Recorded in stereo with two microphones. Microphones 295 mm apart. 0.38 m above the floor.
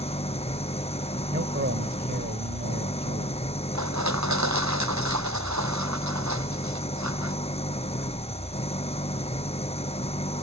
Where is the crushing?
70° right (ahead or behind).